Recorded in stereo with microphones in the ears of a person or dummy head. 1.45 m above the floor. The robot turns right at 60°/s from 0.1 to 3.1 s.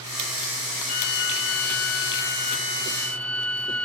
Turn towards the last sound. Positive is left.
turn(degrees=175)